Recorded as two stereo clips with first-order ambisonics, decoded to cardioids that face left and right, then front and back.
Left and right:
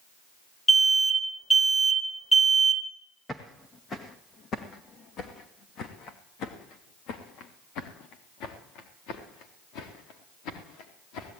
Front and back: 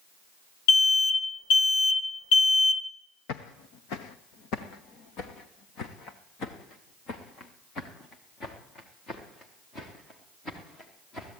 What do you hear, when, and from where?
0.7 s an alarm: 10° left, 1.2 m
3.3 s footsteps: 10° left, 1.5 m; by 11.4 s 70° left, 5 m